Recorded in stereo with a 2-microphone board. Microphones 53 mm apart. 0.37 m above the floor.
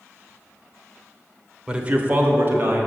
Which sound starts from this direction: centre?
A man speaking, at 1.7 s.